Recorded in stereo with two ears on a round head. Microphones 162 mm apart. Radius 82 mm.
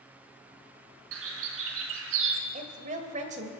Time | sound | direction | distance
1.1 | a bird | 90° right | 1.8 m
2.5 | a woman speaking | 40° right (ahead or behind) | 1.6 m